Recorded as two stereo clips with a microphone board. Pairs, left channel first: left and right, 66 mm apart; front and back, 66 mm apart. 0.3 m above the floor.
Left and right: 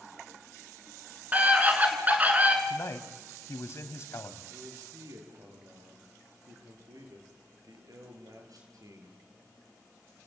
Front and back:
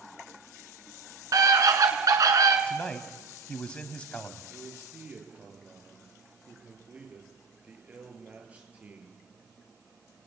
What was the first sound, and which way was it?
A scream, 155° right.